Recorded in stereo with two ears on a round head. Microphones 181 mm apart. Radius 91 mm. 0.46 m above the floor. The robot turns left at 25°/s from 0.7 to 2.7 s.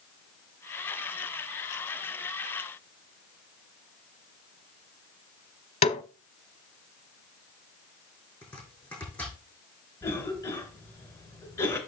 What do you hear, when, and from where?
5.8 s a snare drum: 35° left (ahead or behind), 0.8 m
8.4 s chopping: 10° left (ahead or behind), 5.5 m
10.0 s a cough: 15° left (ahead or behind), 2.5 m